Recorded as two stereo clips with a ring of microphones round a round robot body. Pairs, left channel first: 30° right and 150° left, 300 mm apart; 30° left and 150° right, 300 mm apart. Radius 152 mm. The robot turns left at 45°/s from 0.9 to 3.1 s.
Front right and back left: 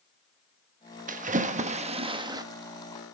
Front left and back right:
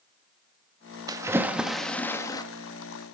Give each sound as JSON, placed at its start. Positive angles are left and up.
{"t": 1.1, "sound": "a splash", "azimuth_deg": 150, "distance_m": 0.8}